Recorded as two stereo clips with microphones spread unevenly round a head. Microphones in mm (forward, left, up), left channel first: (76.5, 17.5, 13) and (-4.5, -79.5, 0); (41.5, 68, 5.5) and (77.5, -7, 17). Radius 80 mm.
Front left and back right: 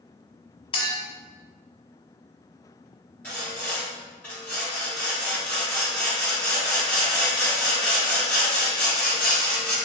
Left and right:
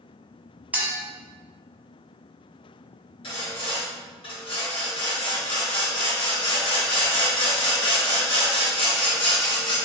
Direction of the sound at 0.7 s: 5° left.